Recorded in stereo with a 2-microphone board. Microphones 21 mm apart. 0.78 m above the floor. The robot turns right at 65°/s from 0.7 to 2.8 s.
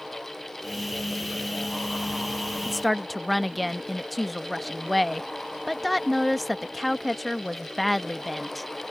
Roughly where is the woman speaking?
Centre.